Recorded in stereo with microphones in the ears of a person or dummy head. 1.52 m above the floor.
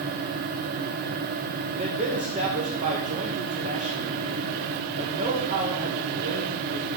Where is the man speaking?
40° right (ahead or behind), 2 m.